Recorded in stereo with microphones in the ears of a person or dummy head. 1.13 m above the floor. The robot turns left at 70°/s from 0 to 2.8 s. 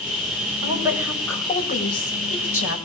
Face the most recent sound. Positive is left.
turn(degrees=65)